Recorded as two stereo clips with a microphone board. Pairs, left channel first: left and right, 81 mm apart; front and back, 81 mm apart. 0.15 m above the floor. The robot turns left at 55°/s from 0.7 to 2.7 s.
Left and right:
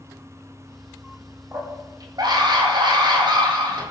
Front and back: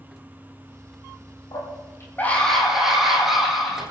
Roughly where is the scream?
Ahead right.